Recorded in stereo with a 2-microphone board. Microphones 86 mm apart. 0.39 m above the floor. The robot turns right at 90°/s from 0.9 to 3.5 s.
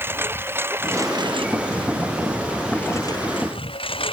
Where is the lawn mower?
25° right (ahead or behind); by 4.1 s 80° left.